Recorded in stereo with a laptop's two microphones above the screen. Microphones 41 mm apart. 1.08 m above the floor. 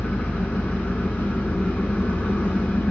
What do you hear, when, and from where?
0.0 s an engine running: 35° left (ahead or behind), 1.0 m